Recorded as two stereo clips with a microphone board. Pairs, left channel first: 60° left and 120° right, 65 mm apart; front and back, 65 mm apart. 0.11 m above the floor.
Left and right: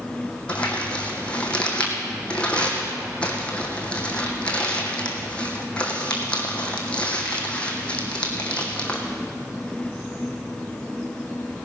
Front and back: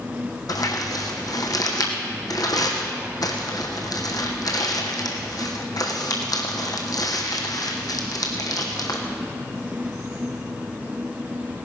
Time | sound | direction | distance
0.5 | crumpling | 15° right | 2 m